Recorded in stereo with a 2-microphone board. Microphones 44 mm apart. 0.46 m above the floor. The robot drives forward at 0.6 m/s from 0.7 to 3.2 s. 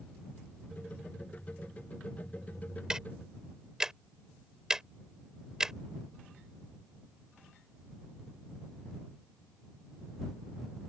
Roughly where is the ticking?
Centre.